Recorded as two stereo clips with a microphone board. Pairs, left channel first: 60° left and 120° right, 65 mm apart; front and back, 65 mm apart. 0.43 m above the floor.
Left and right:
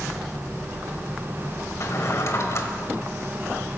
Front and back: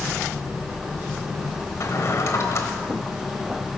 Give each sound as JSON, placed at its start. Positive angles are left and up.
{"t": 1.8, "sound": "a drawer", "azimuth_deg": 30, "distance_m": 1.2}